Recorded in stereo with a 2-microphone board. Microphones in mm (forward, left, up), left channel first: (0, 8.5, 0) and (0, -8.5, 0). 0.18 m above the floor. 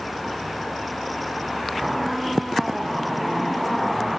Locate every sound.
1.8 s a squeak: 10° right (ahead or behind)